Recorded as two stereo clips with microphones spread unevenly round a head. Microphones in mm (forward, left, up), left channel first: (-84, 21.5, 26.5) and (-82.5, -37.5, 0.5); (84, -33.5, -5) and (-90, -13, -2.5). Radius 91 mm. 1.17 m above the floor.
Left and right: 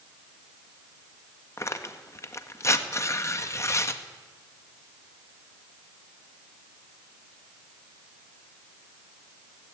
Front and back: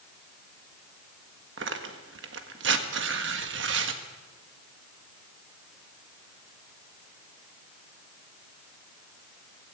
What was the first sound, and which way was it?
Tearing paper, 140° left.